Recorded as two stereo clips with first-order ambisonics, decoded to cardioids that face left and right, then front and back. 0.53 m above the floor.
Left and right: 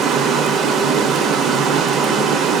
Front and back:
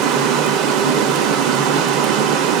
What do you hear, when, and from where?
0.0 s running water: 150° right, 0.7 m